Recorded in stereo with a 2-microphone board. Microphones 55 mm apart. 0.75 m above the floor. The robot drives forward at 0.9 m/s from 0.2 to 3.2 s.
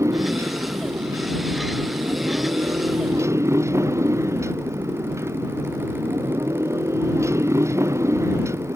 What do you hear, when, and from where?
0.0 s a motorcycle: 60° right (ahead or behind)